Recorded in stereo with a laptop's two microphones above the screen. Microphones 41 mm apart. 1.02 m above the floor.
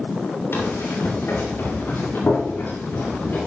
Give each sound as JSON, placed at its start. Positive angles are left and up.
{"t": 0.5, "sound": "running footsteps", "side_deg": 80, "distance_m": 5.5}